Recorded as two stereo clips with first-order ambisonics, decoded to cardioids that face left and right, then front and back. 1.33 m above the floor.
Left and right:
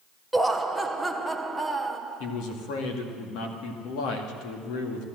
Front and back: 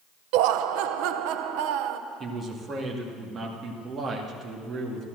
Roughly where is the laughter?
Behind.